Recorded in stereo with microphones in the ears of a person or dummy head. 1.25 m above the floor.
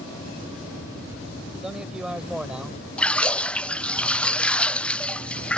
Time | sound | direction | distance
1.5 | a man speaking | centre (ahead or behind) | ?
3.0 | a splash | 5° left (ahead or behind) | ?